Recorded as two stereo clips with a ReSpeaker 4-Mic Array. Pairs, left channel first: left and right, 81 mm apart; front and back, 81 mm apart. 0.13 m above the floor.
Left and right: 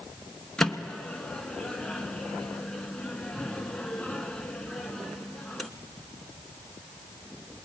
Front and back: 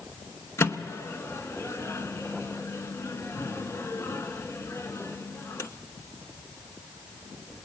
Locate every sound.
0.6 s a microwave: 15° left, 0.9 m